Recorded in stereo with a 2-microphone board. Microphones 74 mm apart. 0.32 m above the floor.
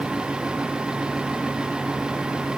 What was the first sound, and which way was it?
Only background noise.